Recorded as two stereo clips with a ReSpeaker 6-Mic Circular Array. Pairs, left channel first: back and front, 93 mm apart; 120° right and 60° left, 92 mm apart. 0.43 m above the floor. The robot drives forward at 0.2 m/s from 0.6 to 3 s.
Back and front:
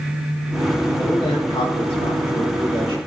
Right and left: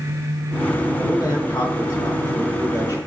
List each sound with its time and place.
1.0 s a man speaking: 165° right, 3 m